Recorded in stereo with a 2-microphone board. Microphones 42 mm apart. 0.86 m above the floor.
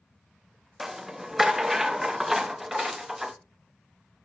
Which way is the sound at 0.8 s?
10° right (ahead or behind).